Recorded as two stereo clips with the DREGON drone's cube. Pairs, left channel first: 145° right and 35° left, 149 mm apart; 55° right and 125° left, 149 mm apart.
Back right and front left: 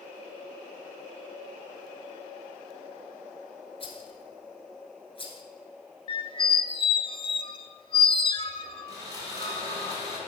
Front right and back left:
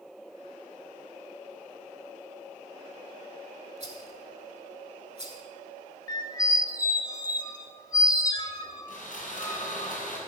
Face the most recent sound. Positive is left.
turn(degrees=-30)